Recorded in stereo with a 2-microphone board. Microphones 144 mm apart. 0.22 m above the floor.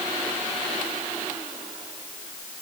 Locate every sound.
Only background noise.